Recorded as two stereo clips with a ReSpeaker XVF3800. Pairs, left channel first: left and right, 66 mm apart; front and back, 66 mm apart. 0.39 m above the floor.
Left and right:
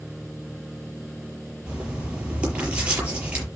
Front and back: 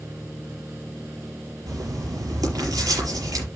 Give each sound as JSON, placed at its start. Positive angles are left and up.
{"t": 1.7, "sound": "writing", "azimuth_deg": -160, "distance_m": 6.0}